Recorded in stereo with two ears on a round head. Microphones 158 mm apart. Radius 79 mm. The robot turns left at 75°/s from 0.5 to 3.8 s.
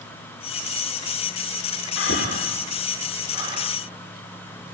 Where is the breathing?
85° left, 4 m; by 3.7 s 45° right (ahead or behind), 4 m.